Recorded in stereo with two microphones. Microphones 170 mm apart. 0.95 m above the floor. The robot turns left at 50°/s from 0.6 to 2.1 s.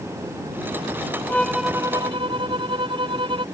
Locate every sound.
1.3 s a violin: 10° left; by 3.5 s 30° right